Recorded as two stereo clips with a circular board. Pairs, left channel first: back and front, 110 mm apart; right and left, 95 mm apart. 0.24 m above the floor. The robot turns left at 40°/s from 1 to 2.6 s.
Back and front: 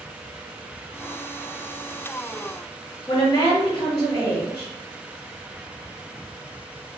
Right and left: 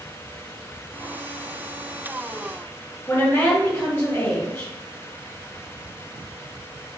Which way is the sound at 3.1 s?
140° right.